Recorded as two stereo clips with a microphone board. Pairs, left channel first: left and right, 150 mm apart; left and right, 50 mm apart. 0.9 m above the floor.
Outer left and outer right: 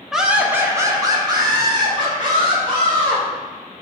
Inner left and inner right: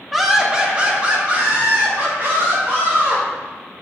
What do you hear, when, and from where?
0.1 s laughter: centre (ahead or behind), 0.5 m; by 3.2 s 35° right (ahead or behind), 2.0 m